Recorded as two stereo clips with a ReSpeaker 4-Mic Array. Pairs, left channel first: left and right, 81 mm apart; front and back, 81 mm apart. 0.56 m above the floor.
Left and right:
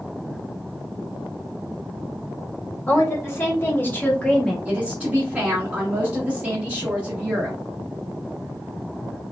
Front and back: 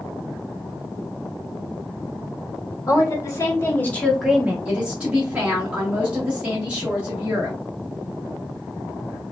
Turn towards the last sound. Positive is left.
turn(degrees=-130)